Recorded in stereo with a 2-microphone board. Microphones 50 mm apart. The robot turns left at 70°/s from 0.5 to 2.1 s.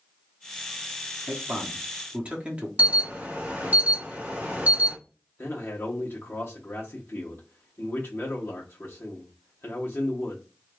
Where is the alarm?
35° right (ahead or behind), 0.9 m.